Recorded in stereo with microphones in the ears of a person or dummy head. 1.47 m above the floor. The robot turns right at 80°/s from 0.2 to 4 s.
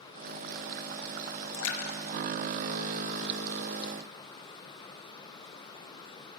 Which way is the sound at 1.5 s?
70° left (ahead or behind).